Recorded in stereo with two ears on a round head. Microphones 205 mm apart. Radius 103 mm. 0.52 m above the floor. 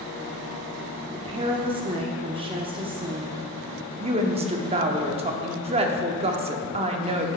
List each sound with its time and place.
1.1 s a woman speaking: 25° right (ahead or behind), 0.6 m
4.0 s a woman speaking: 25° right (ahead or behind), 0.7 m